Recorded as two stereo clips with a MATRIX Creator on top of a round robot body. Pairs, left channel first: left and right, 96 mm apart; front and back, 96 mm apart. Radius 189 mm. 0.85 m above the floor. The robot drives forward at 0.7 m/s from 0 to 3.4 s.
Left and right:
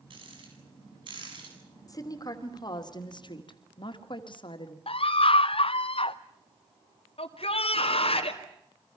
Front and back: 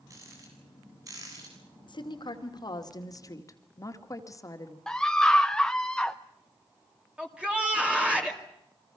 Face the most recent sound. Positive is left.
turn(degrees=100)